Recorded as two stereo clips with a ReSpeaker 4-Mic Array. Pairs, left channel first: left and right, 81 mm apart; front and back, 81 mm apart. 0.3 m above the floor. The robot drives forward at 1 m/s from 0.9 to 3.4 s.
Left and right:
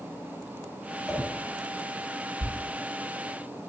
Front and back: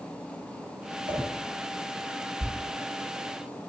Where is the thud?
70° left, 0.7 m; by 2.5 s 80° left, 0.7 m.